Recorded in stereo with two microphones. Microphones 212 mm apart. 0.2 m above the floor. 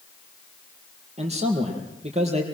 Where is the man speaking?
30° right (ahead or behind), 5 m.